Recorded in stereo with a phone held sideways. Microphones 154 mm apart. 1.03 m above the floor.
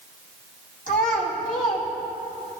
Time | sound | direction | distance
0.9 | a child speaking | 60° left (ahead or behind) | 2.5 m